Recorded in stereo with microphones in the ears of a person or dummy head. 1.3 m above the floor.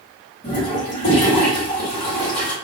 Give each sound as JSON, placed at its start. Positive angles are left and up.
{"t": 0.4, "sound": "a toilet flushing", "side_deg": 30, "distance_m": 1.5}